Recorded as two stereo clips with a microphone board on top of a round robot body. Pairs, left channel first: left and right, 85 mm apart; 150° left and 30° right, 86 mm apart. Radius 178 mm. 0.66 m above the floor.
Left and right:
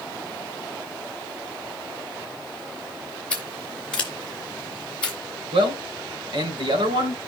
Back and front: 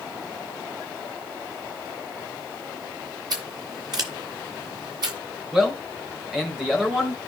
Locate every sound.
3.3 s scissors: 10° left, 0.6 m
5.5 s a man speaking: 115° right, 3.5 m